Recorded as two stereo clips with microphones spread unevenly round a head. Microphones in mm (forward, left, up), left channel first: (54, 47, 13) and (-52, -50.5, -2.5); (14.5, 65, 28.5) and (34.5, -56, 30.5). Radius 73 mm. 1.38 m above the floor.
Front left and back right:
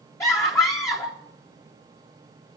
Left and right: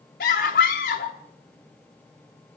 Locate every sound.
0.2 s a scream: 115° left, 0.7 m